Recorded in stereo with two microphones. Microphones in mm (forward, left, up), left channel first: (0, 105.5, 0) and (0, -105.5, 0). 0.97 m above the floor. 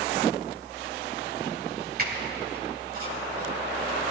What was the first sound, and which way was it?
A squeak, 45° right (ahead or behind).